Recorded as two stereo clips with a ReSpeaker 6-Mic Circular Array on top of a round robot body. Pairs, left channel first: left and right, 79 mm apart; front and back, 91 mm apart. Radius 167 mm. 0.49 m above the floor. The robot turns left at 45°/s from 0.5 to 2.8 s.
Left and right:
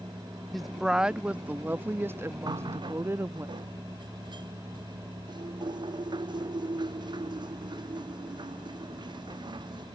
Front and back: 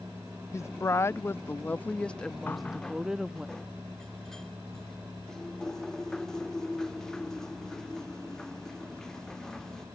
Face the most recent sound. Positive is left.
turn(degrees=-85)